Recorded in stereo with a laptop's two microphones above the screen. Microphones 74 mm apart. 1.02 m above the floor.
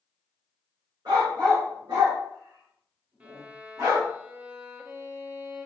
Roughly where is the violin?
Centre.